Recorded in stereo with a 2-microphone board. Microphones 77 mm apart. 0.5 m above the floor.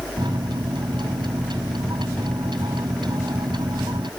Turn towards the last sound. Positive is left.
turn(degrees=-75)  # may be behind; listen again after turning